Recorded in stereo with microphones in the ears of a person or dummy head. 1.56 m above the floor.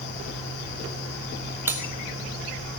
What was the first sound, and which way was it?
Cutlery clinking, 15° right (ahead or behind).